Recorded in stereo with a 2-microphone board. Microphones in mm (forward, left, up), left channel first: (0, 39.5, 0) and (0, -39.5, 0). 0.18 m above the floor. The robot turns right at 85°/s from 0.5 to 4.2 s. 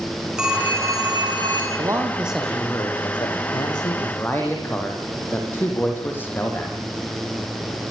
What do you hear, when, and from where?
0.4 s a phone ringing: 170° right, 8.5 m; by 1.7 s 70° right, 8.5 m
1.8 s a man speaking: 50° right, 7 m; by 6.8 s 155° left, 7 m